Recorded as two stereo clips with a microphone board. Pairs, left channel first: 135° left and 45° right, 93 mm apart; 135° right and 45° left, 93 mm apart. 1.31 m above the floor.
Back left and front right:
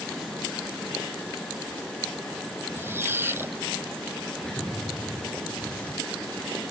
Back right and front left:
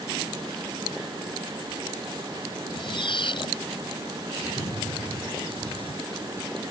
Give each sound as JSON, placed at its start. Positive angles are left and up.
{"t": 2.8, "sound": "a squeak", "azimuth_deg": -110}
{"t": 4.4, "sound": "an explosion", "azimuth_deg": -145}